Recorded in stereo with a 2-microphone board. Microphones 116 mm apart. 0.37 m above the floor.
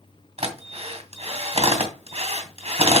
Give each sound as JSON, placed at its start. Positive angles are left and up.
{"t": 0.4, "sound": "a drill", "side_deg": -65, "distance_m": 2.5}